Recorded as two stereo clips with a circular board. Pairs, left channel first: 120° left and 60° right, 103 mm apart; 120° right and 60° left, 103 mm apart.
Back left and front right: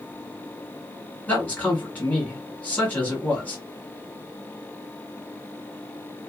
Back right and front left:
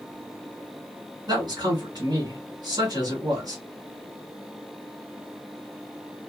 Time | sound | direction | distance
1.3 | a man speaking | 50° left | 2.0 m